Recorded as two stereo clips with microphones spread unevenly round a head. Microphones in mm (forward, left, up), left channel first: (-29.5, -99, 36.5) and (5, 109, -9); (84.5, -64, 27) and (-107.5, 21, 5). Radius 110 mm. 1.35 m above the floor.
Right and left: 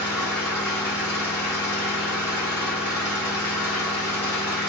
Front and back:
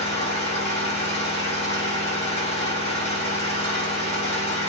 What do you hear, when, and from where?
0.0 s an engine running: 45° right, 1.1 m